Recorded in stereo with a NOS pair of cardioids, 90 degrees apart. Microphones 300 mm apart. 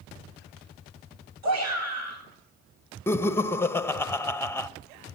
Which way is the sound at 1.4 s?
60° right.